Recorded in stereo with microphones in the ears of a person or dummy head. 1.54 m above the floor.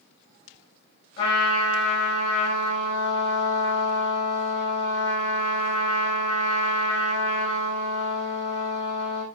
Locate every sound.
1.2 s a trumpet: 30° left (ahead or behind), 5.5 m